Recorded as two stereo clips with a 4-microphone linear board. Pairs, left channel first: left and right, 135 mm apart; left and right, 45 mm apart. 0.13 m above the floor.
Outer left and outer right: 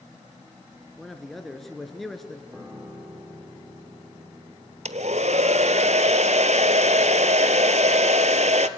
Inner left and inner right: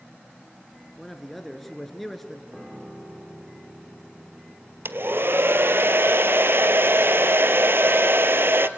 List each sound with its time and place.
1.0 s a man speaking: centre (ahead or behind), 1.6 m
2.5 s a piano: 15° right (ahead or behind), 4.5 m
4.8 s a hair dryer: 60° right (ahead or behind), 0.7 m